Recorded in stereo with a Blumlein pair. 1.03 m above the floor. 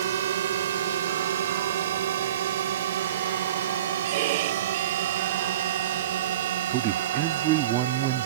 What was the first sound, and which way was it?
A drone, 60° right.